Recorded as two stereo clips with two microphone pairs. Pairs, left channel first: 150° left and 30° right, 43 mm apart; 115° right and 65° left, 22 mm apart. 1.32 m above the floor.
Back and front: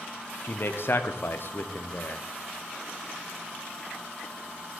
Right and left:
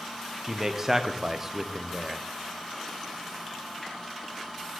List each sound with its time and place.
0.4 s a man speaking: 135° left, 0.5 m